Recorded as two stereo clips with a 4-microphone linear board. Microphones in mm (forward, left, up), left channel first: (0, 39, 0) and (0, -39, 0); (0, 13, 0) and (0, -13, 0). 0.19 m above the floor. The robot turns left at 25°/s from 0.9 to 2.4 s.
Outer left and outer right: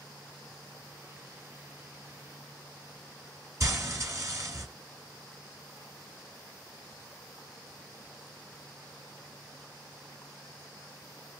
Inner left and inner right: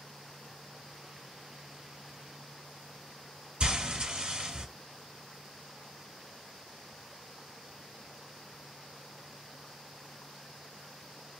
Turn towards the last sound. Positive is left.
turn(degrees=-45)  # may be behind; listen again after turning